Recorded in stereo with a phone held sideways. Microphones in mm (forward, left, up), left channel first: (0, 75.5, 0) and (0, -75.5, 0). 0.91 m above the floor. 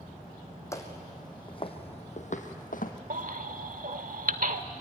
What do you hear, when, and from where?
0.7 s footsteps: 20° left (ahead or behind), 2.5 m; by 2.9 s 65° left (ahead or behind), 2 m
3.1 s a baby crying: 65° right (ahead or behind), 1.1 m